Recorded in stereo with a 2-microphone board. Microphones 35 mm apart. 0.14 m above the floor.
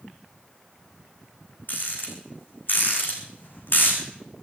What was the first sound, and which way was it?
A rattle, 65° left (ahead or behind).